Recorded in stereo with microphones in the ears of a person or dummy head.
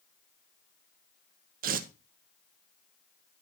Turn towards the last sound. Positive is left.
turn(degrees=-50)  # may be behind; listen again after turning